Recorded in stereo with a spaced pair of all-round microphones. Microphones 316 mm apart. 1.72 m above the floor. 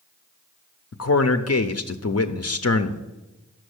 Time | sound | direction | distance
0.9 | a man speaking | 55° left (ahead or behind) | 0.5 m